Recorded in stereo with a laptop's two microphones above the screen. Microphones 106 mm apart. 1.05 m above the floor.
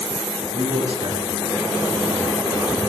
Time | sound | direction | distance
0.5 | a man speaking | 55° right (ahead or behind) | 10 m